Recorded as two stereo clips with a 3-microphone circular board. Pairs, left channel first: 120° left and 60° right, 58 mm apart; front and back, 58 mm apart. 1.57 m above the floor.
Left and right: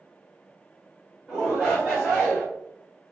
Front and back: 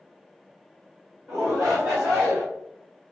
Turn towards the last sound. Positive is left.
turn(degrees=-145)